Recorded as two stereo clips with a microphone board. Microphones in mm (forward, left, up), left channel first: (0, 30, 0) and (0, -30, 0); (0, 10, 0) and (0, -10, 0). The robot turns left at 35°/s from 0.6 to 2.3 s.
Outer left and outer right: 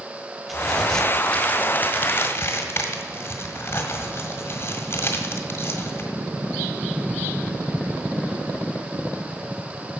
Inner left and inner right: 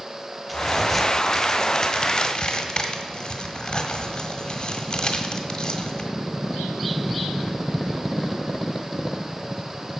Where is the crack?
5° right (ahead or behind), 1.5 m; by 6.1 s 40° left (ahead or behind), 1.5 m.